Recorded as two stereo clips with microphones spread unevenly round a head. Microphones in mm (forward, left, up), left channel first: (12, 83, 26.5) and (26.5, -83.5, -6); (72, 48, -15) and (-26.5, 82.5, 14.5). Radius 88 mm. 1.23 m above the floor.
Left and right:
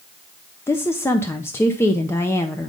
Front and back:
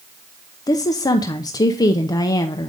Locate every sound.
0.7 s a woman speaking: 15° left, 0.6 m